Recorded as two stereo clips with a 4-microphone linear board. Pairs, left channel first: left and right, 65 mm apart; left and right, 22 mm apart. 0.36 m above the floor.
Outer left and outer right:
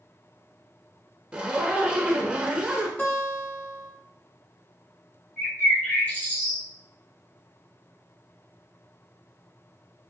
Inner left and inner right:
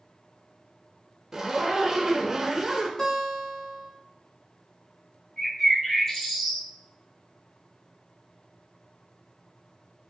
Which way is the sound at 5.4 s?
30° left (ahead or behind).